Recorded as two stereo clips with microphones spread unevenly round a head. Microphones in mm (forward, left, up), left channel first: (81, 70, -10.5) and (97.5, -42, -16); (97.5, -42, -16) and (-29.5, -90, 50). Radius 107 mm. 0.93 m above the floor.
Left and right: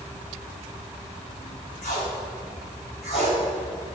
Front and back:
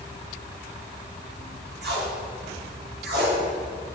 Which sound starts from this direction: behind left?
Tape being pulled, at 1.8 s.